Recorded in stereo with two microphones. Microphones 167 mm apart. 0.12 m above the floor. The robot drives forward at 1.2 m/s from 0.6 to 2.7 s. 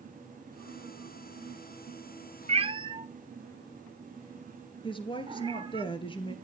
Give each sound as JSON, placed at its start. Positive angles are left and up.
{"t": 2.5, "sound": "a cat meowing", "side_deg": -40, "distance_m": 0.5}
{"t": 4.8, "sound": "a woman speaking", "side_deg": 30, "distance_m": 1.9}